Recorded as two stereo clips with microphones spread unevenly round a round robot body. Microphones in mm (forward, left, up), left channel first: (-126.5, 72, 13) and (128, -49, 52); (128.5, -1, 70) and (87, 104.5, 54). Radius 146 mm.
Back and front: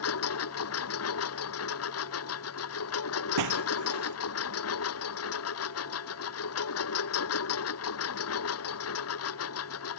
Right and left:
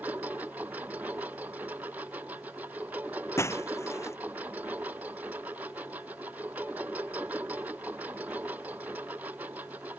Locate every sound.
0.0 s a lawn mower: 165° right
3.4 s breaking glass: 5° right